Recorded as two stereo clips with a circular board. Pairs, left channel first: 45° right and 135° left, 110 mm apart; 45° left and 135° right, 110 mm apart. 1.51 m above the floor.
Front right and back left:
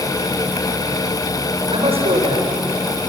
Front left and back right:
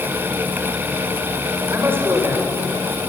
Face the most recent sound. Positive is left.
turn(degrees=155)